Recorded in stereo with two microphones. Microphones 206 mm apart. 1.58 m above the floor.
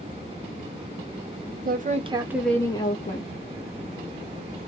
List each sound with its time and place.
1.6 s a woman speaking: 45° right (ahead or behind), 0.7 m; by 3.3 s 45° left (ahead or behind), 0.7 m